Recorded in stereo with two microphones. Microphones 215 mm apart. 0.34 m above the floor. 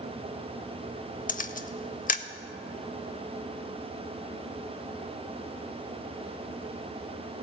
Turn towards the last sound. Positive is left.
turn(degrees=40)  # may be behind; listen again after turning